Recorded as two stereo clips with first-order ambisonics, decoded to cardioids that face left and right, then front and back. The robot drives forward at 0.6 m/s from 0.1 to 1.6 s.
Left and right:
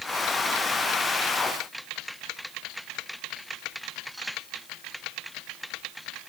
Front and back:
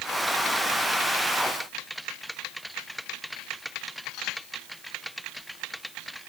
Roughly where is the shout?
I don't hear a shout.